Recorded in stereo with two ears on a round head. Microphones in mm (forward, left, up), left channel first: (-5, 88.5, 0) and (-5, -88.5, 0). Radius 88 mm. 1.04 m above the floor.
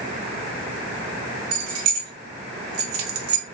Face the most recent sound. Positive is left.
turn(degrees=-70)  # may be behind; listen again after turning